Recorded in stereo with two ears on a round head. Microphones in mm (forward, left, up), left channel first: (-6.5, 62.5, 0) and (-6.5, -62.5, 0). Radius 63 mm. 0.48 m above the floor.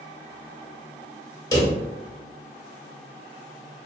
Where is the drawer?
25° left (ahead or behind), 0.8 m.